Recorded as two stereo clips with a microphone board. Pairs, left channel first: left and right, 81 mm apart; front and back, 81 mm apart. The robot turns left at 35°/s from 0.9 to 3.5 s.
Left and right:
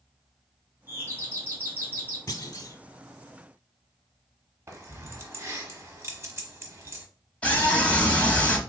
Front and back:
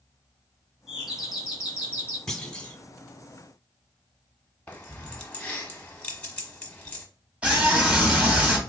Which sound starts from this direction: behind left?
A scream, at 7.4 s.